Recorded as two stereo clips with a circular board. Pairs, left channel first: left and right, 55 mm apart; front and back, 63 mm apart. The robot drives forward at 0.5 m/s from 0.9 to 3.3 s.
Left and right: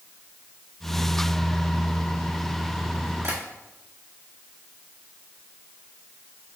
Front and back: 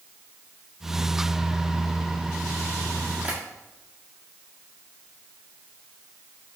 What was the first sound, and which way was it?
Tapping, 110° right.